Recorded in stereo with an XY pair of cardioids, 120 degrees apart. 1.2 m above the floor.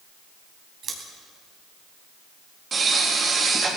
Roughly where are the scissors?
Ahead right.